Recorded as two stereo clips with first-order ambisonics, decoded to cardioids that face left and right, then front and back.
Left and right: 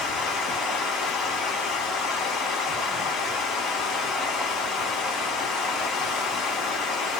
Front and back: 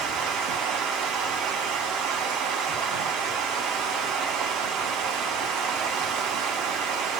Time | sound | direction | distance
0.0 | running water | 140° left | 0.8 m